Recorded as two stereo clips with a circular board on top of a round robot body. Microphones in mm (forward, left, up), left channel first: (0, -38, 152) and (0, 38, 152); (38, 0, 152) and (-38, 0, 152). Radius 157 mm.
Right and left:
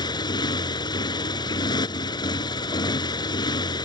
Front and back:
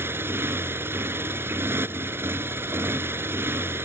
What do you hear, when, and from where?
0.0 s a motorcycle: 120° right